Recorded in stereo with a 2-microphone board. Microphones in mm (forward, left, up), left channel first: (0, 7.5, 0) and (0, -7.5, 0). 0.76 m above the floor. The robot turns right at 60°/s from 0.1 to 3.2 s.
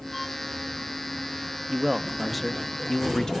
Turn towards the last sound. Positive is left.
turn(degrees=60)